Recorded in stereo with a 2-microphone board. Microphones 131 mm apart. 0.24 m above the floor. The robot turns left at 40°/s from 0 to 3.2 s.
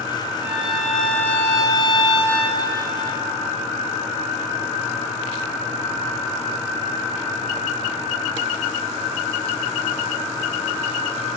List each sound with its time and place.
0.4 s a violin: 160° right, 2.5 m; by 2.6 s 110° left, 2.5 m